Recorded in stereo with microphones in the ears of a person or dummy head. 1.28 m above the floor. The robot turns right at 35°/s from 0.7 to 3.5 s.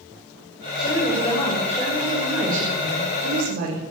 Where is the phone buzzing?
I don't hear a phone buzzing.